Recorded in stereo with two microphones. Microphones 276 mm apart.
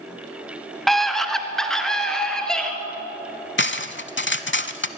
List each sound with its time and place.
0.9 s a scream: centre (ahead or behind), 1.4 m
3.6 s cutlery clinking: 45° left (ahead or behind), 0.7 m